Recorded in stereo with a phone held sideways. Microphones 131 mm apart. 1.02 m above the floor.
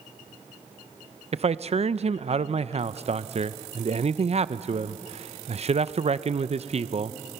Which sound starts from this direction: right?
A man speaking, at 1.3 s.